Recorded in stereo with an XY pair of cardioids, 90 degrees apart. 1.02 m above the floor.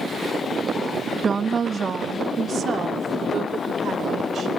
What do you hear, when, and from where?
1.2 s a woman speaking: 40° right, 1.0 m; by 4.5 s 60° right, 4.5 m